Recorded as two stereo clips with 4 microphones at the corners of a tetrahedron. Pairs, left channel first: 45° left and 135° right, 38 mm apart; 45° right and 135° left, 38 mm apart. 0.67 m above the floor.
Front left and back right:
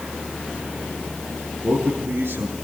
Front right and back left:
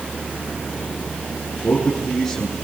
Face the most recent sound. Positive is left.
turn(degrees=-120)